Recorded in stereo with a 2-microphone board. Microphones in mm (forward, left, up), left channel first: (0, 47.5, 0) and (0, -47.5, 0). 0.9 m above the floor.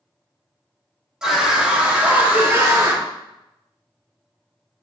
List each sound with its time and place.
1.2 s a scream: 5° right (ahead or behind), 2 m; by 3.0 s 35° right (ahead or behind), 2.0 m